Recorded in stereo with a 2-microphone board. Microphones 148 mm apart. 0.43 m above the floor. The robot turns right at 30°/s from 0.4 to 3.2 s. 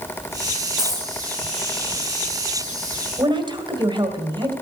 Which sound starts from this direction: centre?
A dropped coin, at 0.8 s.